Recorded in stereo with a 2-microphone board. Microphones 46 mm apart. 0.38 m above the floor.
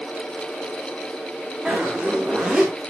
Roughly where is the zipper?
Centre.